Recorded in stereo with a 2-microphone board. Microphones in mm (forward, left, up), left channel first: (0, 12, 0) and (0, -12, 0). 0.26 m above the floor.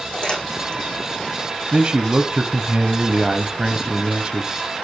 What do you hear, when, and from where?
0.1 s crumpling: 45° left (ahead or behind), 7 m
1.7 s a man speaking: 40° right (ahead or behind), 1.2 m